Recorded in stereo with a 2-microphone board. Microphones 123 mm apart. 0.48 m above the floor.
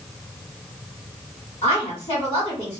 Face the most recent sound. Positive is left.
turn(degrees=55)  # may be behind; listen again after turning